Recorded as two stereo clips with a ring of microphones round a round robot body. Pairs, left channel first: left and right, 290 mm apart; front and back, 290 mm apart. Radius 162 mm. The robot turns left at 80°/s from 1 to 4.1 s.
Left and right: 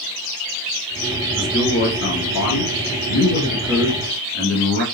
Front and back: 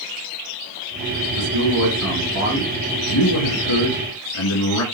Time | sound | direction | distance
1.4 | a man speaking | 170° right | 5.5 m